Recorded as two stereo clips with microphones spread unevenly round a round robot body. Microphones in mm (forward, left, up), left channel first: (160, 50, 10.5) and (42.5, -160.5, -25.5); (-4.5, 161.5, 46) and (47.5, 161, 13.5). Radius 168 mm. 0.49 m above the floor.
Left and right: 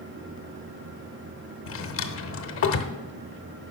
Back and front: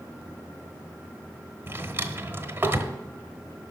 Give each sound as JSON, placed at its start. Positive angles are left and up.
{"t": 1.7, "sound": "a drawer", "azimuth_deg": 25, "distance_m": 1.0}